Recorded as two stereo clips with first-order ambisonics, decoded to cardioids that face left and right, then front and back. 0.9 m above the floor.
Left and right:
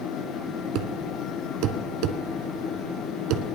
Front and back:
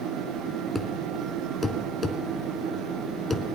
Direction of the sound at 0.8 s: 80° right.